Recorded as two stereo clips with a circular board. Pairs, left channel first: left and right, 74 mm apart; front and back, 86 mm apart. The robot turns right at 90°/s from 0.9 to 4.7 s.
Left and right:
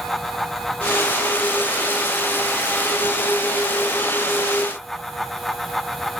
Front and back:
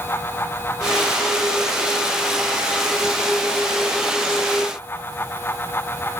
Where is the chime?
No chime in this recording.